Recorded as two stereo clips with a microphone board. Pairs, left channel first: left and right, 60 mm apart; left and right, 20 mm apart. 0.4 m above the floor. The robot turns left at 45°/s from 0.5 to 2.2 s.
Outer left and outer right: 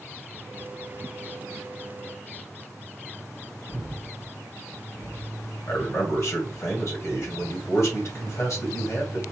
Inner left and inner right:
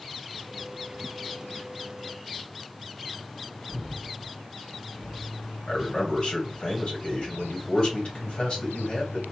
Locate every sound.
3.7 s breathing: 40° left (ahead or behind), 1.8 m
5.7 s a man speaking: 55° left (ahead or behind), 2.0 m